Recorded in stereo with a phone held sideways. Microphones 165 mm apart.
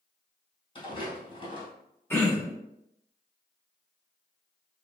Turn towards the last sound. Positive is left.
turn(degrees=15)  # may be behind; listen again after turning